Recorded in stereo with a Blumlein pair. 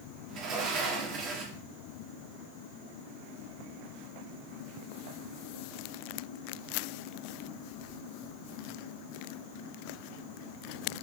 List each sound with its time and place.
0.3 s a sliding door: 30° right, 2.5 m